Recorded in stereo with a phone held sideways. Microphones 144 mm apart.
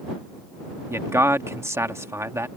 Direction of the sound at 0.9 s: 20° right (ahead or behind).